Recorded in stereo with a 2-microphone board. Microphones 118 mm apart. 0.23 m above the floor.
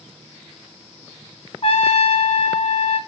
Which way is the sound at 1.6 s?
55° left (ahead or behind).